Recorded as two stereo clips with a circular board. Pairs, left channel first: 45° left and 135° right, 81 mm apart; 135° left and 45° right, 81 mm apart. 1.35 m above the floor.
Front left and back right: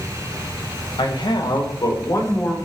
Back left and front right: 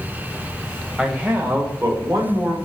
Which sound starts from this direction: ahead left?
A man speaking, at 1.0 s.